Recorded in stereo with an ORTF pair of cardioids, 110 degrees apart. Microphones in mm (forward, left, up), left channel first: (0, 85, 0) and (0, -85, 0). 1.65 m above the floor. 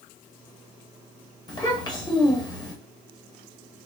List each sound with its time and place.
1.5 s a child speaking: 25° left, 1.4 m